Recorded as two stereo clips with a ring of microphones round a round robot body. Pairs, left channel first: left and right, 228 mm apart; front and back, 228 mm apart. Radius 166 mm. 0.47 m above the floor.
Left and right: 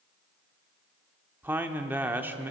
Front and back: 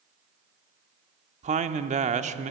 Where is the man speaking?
165° right, 0.8 m.